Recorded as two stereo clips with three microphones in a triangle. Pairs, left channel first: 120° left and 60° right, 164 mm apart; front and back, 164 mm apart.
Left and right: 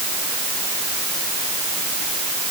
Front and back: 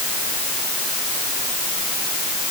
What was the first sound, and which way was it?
Only background noise.